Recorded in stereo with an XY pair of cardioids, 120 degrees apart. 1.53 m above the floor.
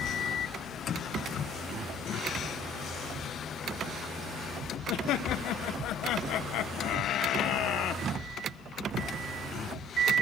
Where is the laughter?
70° left, 1.6 m.